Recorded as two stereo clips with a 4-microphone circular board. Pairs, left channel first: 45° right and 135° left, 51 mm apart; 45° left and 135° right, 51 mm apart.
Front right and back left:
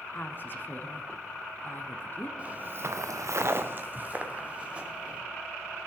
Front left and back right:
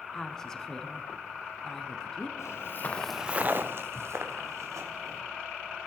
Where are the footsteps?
70° left, 1.3 m; by 5.2 s 155° right, 3.5 m.